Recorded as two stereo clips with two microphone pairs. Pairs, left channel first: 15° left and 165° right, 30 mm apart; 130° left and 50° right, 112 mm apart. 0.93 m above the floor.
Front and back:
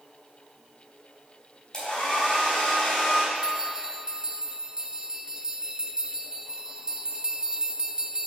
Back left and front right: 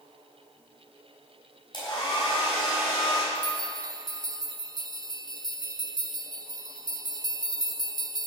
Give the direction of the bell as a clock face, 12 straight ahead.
3 o'clock.